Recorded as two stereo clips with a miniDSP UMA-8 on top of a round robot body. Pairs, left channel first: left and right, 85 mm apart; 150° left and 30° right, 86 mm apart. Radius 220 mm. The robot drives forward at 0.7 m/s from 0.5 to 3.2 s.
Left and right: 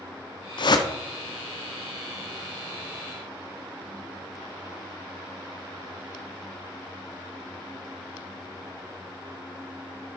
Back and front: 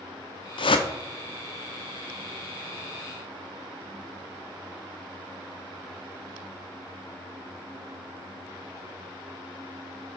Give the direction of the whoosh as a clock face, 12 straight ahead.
8 o'clock.